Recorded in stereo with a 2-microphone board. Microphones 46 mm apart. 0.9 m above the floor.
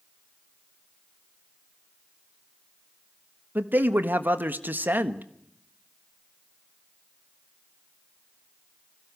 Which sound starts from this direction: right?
A man speaking, at 3.5 s.